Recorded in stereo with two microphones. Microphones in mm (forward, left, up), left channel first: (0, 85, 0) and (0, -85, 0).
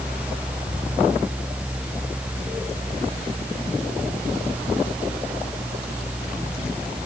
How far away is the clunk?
No clunk in this recording.